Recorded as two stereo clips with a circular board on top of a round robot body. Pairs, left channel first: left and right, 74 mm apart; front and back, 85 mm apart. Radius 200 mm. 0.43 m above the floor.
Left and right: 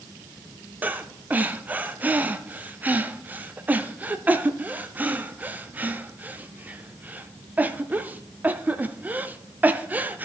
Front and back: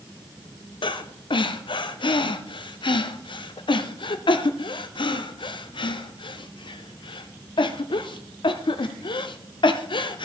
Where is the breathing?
20° right, 0.5 m.